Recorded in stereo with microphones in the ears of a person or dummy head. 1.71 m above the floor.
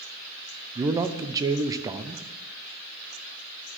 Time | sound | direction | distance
0.8 | a man speaking | 20° right (ahead or behind) | 0.7 m